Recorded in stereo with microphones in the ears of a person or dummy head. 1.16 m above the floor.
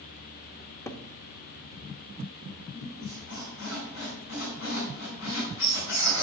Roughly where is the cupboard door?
Centre.